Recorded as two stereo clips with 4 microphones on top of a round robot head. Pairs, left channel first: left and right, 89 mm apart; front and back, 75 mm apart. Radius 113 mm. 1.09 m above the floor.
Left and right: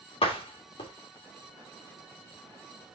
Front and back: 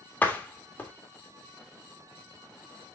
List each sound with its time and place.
0.2 s a door slam: 70° left, 1.9 m